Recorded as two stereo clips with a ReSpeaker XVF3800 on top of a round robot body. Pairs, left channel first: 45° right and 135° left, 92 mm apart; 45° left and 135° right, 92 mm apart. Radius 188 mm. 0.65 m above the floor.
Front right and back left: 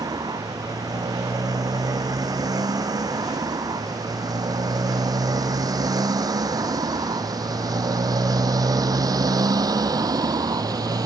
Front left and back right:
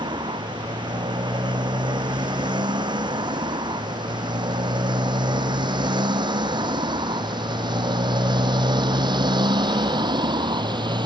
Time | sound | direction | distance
0.0 | a motorcycle | 175° right | ?